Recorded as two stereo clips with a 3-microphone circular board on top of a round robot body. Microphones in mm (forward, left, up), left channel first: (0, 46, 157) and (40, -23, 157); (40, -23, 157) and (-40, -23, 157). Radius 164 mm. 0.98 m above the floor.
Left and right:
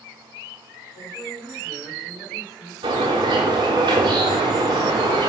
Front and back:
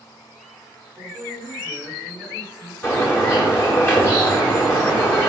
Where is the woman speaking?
105° left, 3.5 m.